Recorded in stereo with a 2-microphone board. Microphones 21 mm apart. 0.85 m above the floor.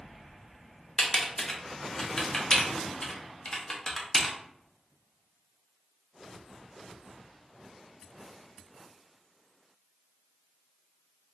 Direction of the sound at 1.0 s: 30° left (ahead or behind).